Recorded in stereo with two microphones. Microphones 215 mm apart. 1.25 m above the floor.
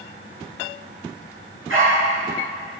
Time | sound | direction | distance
1.7 | a dog barking | 75° right (ahead or behind) | 5 m